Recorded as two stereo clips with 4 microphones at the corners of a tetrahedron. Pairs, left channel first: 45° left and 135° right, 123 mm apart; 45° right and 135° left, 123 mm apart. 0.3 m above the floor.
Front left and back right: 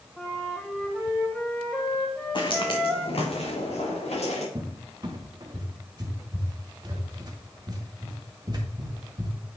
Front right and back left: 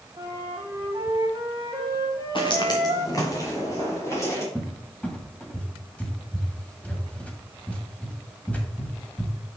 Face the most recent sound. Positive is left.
turn(degrees=-115)